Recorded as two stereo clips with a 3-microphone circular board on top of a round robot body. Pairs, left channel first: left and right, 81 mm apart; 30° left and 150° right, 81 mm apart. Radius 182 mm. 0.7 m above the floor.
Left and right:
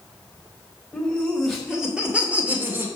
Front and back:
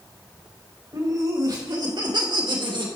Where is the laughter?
175° left, 3.5 m; by 2.9 s 155° right, 3 m.